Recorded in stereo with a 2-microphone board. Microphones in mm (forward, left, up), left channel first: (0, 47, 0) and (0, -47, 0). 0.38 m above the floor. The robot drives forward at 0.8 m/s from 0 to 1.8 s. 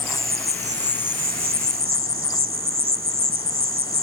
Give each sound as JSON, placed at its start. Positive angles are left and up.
{"t": 0.0, "sound": "an insect", "side_deg": -25}